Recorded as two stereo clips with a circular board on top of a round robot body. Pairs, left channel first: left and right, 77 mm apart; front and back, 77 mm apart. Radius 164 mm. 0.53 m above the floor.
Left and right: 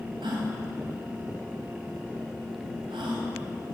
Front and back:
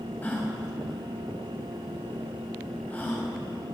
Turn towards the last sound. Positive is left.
turn(degrees=-70)